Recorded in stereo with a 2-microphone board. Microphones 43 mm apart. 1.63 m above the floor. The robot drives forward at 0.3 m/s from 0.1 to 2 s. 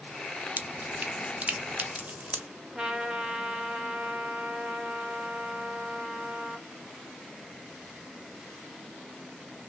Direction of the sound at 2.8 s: 15° right (ahead or behind).